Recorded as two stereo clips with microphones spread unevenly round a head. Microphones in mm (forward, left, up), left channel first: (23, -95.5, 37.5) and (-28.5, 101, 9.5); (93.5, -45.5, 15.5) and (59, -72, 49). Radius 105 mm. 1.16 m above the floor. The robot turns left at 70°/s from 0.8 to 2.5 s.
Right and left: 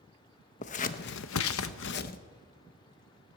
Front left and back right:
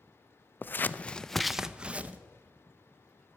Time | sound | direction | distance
0.6 | scissors | 25° right | 0.6 m